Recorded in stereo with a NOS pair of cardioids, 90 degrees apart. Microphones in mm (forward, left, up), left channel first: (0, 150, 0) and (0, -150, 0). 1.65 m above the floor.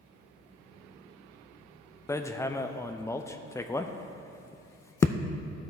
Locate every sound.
2.1 s hammering: 10° left, 0.6 m